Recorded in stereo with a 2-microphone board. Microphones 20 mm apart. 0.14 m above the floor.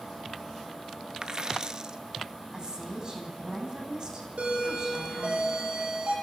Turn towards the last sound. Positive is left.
turn(degrees=-80)